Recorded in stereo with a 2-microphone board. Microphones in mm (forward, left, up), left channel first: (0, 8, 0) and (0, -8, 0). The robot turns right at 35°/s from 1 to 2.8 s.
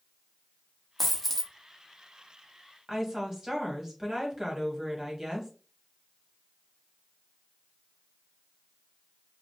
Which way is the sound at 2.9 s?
30° right (ahead or behind).